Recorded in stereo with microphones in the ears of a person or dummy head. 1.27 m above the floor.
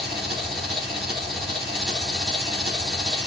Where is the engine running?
Centre (ahead or behind), 1.6 m.